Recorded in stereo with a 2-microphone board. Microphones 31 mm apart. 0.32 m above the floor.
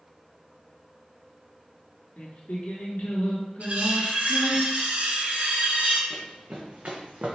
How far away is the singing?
About 1.3 m.